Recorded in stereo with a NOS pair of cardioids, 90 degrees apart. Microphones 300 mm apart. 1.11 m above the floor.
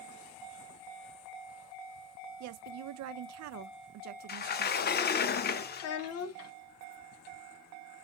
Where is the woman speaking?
65° right, 0.6 m.